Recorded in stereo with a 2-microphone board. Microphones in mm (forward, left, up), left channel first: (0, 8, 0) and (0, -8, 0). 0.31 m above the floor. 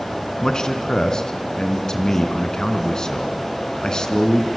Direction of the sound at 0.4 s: 45° left (ahead or behind).